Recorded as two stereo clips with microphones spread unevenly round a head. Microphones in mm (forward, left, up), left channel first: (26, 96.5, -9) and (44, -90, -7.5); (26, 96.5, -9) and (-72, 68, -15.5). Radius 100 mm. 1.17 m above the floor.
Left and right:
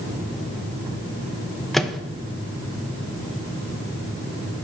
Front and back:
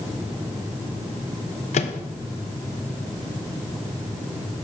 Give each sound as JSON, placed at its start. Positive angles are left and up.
{"t": 1.7, "sound": "a microwave", "azimuth_deg": 5, "distance_m": 0.6}